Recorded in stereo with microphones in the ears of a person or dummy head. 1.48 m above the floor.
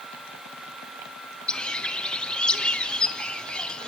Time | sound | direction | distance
1.5 | a bird | 5° left (ahead or behind) | 0.5 m